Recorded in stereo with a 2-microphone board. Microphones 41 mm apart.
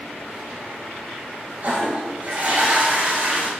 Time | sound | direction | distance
1.6 | a toilet flushing | 35° right (ahead or behind) | 1.4 m